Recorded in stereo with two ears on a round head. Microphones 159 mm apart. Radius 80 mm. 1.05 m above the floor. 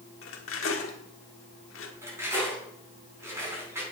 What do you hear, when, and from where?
0.2 s cutlery clinking: 80° left, 1.6 m
2.0 s cutlery clinking: 15° right (ahead or behind), 5 m